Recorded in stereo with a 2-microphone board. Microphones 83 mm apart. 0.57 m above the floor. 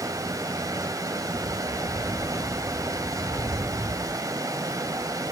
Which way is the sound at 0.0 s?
45° right (ahead or behind).